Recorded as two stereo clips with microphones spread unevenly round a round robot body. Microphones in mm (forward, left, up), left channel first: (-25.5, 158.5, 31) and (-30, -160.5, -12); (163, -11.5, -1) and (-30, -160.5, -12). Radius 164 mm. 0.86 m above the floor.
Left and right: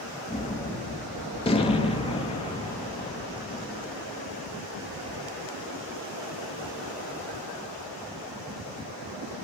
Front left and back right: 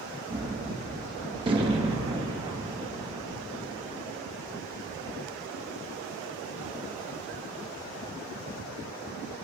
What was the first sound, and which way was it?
A gunshot, 160° left.